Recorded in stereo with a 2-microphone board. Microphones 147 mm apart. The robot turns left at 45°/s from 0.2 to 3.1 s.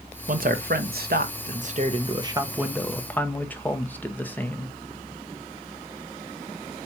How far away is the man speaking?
About 0.9 m.